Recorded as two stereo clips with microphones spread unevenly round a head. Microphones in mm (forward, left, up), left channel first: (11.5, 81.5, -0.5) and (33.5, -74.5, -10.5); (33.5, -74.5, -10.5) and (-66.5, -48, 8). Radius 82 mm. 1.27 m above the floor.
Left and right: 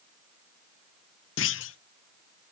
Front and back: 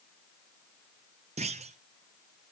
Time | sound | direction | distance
1.4 | a clunk | 110° left | 0.6 m